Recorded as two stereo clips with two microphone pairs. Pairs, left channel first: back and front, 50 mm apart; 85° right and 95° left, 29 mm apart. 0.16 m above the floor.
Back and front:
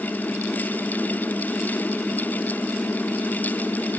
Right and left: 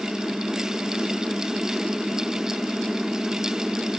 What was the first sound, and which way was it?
Only background noise.